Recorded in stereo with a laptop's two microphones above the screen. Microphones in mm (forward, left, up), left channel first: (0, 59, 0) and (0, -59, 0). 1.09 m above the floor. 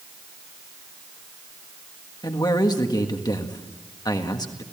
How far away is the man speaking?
About 1.6 m.